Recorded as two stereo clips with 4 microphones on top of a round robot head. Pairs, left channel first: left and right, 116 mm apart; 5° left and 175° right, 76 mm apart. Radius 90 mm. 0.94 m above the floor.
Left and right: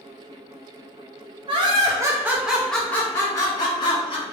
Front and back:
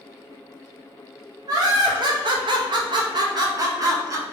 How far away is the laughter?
About 1.0 m.